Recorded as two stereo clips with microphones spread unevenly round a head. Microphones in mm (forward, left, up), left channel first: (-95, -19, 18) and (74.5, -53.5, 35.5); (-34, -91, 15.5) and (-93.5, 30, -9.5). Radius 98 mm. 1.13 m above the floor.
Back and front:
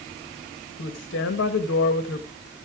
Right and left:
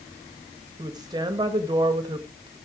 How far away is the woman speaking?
About 1.2 m.